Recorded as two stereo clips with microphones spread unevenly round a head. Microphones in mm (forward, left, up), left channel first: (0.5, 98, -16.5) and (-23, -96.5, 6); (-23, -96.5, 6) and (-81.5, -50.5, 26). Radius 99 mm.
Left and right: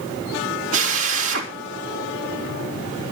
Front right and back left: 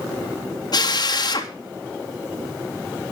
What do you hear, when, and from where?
0.7 s a drill: 70° right, 3.5 m